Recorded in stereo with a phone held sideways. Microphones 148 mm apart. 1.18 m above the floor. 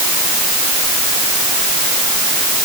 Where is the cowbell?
No cowbell in this recording.